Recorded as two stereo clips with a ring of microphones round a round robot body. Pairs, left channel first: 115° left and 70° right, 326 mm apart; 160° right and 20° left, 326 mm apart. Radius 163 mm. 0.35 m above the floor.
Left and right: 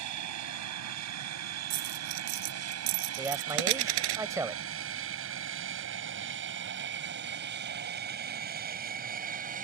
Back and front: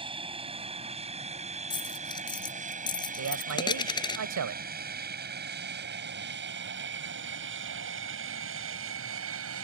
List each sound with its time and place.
0.0 s an aircraft: 50° right; by 9.7 s 10° right
1.7 s a dropped coin: 80° right
3.2 s a man speaking: 10° left